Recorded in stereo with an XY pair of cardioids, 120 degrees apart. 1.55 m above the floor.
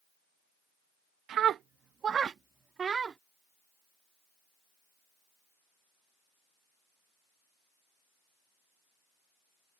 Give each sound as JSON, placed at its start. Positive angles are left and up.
{"t": 1.3, "sound": "a scream", "azimuth_deg": -60}